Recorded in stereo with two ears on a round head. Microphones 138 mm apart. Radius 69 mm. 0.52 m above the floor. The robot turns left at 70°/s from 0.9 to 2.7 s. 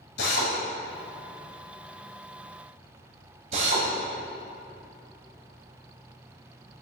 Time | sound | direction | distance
0.2 | a drill | 75° left (ahead or behind) | 2 m